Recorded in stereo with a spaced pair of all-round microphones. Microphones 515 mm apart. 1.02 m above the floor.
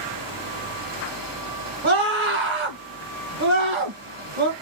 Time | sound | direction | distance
0.0 | a fan | 40° right (ahead or behind) | 1.7 m
1.8 | a scream | 60° right (ahead or behind) | 1.3 m